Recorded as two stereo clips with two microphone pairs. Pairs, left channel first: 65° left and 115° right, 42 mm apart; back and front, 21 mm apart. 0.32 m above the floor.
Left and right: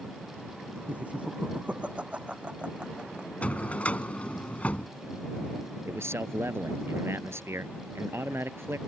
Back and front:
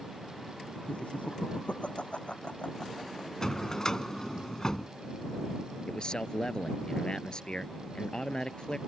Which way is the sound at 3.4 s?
125° left.